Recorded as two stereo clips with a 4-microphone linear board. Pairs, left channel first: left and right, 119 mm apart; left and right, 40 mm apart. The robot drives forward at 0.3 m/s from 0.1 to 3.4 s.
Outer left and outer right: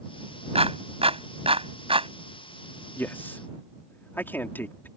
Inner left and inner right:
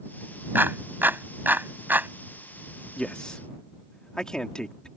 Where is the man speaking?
15° left (ahead or behind).